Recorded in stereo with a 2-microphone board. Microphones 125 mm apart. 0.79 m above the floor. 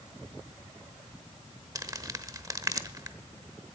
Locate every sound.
1.8 s crumpling: 30° right (ahead or behind), 0.9 m